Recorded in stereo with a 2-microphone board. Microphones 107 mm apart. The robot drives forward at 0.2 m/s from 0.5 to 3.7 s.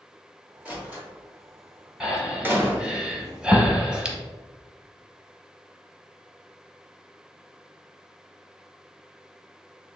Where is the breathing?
5° right (ahead or behind), 1.0 m; by 4.2 s 10° right (ahead or behind), 0.6 m.